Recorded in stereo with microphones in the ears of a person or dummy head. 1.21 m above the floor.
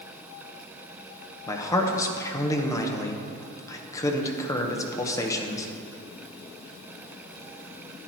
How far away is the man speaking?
About 1.0 m.